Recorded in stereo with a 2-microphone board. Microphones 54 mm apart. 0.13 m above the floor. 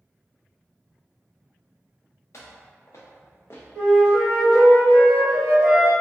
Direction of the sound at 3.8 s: 20° left (ahead or behind).